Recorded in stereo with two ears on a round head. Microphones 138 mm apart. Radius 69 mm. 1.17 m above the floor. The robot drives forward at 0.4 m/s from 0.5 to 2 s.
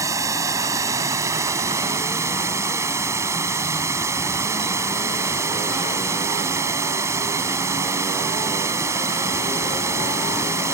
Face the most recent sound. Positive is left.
turn(degrees=-20)  # may be behind; listen again after turning